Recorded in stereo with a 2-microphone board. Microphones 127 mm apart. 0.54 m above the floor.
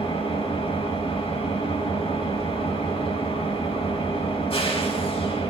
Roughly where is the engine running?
Left.